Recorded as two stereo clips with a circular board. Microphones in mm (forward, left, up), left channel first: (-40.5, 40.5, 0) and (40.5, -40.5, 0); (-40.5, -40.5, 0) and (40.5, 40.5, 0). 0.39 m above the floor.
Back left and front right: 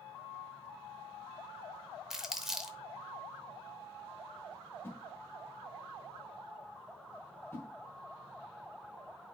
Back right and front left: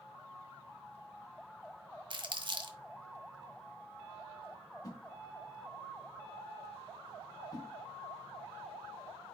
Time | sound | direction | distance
2.1 | crumpling | 40° left | 0.7 m
4.8 | a whoosh | 170° right | 1.3 m